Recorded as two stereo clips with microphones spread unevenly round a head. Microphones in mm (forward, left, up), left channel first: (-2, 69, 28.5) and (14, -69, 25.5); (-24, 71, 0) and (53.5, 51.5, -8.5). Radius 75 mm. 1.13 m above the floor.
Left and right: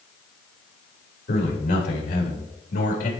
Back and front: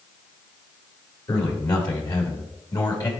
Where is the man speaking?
130° left, 3.5 m.